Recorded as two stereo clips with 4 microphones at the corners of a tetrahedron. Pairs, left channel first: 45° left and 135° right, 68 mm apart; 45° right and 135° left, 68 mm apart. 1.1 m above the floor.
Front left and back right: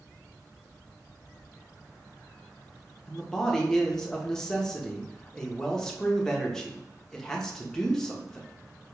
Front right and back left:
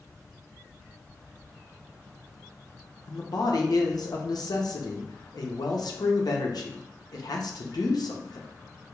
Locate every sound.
3.1 s a man speaking: 40° right, 0.9 m